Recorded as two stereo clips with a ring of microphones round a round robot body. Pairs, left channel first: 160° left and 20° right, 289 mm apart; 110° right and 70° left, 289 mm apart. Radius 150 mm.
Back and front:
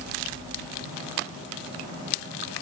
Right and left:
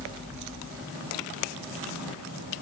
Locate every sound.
Only background noise.